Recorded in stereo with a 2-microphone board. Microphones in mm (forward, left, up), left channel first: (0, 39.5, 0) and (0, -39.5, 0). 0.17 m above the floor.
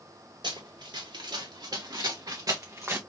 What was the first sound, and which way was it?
Running footsteps, 80° right.